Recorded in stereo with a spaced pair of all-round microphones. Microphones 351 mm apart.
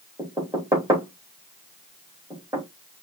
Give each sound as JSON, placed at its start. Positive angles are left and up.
{"t": 0.2, "sound": "knocking", "side_deg": -10, "distance_m": 2.0}